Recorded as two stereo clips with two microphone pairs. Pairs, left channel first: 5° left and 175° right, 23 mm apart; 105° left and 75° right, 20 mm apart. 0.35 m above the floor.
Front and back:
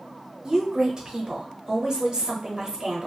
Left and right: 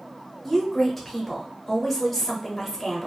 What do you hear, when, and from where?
0.4 s a woman speaking: straight behind, 1.0 m